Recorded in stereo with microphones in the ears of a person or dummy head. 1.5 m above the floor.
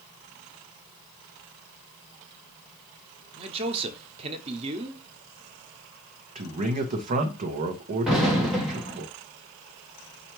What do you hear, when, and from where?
3.4 s a man speaking: 35° right (ahead or behind), 0.7 m
6.3 s a man speaking: 45° right (ahead or behind), 0.9 m
8.1 s an explosion: 5° right (ahead or behind), 1.4 m